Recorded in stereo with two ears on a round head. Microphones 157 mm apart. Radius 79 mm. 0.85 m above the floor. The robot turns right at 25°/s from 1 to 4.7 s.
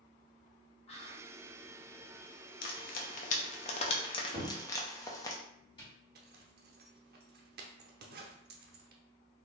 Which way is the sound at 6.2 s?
60° right (ahead or behind).